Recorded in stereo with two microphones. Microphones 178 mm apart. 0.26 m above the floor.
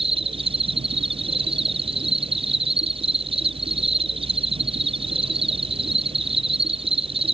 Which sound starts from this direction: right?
An insect, at 0.0 s.